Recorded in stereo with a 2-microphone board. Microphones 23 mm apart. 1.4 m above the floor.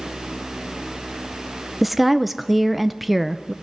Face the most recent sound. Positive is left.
turn(degrees=-5)  # may be behind; listen again after turning